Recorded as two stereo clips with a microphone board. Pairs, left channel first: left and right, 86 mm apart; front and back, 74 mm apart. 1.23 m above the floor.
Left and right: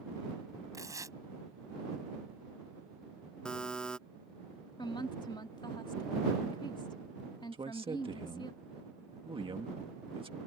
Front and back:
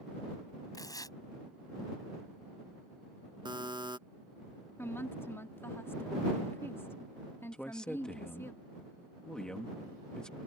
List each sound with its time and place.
0.7 s tearing paper: 35° right
3.5 s a buzzer: 170° left
4.8 s a woman speaking: 60° left
7.5 s a man speaking: 80° right